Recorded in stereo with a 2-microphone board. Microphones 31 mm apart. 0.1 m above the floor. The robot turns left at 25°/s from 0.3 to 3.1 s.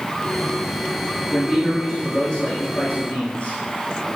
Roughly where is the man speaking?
Behind.